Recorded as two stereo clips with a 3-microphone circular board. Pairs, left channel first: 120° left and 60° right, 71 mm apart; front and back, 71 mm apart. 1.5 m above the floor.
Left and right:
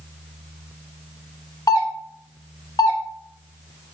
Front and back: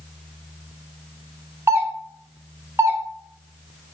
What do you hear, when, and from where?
1.7 s a doorbell: 130° left, 1.3 m